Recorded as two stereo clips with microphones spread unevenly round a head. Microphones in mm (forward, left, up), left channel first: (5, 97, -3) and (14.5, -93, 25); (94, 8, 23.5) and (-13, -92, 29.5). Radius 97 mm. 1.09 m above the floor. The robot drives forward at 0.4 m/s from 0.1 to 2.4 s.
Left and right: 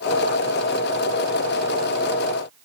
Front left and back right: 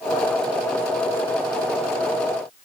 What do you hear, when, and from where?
Only background noise.